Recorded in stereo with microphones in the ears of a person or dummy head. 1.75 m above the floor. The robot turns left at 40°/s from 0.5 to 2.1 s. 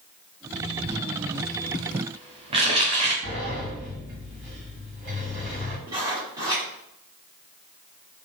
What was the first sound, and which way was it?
Crumpling, 70° right (ahead or behind).